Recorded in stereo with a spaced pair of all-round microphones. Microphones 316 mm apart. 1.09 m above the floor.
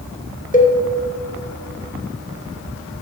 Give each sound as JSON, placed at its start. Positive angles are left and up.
{"t": 0.5, "sound": "a cowbell", "side_deg": 25, "distance_m": 0.9}